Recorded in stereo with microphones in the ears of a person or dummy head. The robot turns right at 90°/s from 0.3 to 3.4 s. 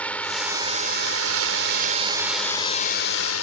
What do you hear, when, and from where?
0.0 s a drone: 165° left; by 3.4 s 85° left